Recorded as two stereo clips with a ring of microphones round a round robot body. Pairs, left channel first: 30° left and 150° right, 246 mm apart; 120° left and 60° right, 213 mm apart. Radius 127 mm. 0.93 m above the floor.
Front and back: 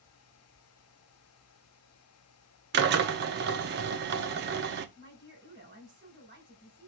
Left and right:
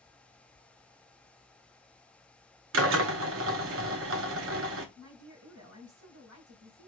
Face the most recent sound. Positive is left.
turn(degrees=-80)